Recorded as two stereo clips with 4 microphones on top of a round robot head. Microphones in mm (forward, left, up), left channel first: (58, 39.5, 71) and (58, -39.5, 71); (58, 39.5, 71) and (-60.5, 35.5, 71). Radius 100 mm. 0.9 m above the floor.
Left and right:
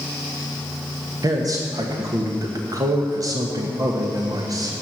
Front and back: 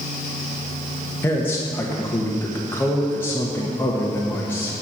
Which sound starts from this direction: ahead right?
A man speaking, at 1.2 s.